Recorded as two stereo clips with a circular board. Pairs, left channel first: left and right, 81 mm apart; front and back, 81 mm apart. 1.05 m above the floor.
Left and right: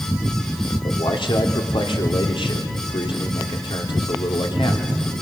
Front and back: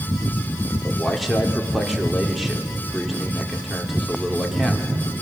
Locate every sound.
0.8 s a man speaking: 90° left, 3 m